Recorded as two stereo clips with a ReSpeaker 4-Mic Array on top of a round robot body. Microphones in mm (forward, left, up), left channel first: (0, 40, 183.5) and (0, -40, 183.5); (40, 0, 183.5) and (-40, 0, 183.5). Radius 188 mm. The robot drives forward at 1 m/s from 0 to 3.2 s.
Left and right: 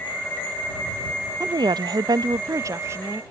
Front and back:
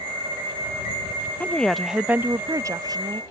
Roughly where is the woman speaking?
Ahead right.